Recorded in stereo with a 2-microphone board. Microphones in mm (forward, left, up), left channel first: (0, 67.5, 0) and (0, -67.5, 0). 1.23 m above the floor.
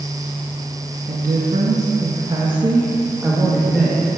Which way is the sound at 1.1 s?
80° right.